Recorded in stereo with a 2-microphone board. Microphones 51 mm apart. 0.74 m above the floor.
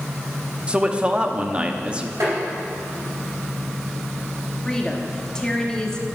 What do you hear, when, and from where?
0.7 s a man speaking: 20° right (ahead or behind), 0.8 m
2.2 s tapping: 70° right (ahead or behind), 4 m
4.7 s a woman speaking: 15° left (ahead or behind), 1.3 m